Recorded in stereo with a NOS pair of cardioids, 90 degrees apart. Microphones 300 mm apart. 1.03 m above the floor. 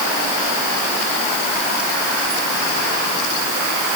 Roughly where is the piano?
No piano in this recording.